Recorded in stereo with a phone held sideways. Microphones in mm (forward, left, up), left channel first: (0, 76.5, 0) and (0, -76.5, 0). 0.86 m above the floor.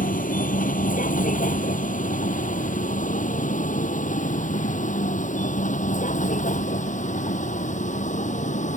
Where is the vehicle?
60° left (ahead or behind); by 8.8 s 55° left (ahead or behind).